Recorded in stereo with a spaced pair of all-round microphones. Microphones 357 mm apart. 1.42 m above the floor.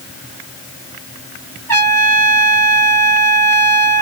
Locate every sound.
1.7 s a trumpet: 5° left (ahead or behind), 2 m